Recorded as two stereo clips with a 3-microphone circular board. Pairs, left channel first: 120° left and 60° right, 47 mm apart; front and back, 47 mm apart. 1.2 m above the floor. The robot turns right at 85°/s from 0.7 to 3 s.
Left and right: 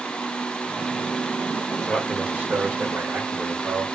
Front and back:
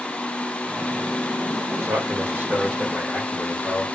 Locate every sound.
1.7 s a man speaking: 165° left, 2.5 m; by 3.9 s 80° right, 2.5 m